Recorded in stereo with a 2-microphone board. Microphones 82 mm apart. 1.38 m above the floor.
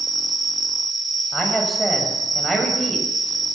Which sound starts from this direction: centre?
A man speaking, at 1.3 s.